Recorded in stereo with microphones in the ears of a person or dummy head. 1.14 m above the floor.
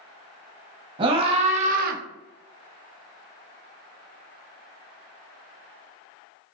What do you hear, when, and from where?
1.0 s a scream: 30° right (ahead or behind), 1.3 m; by 2.0 s 55° right (ahead or behind), 0.6 m